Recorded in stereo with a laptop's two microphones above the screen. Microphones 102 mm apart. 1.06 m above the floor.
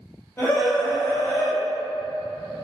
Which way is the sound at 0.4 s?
20° left (ahead or behind).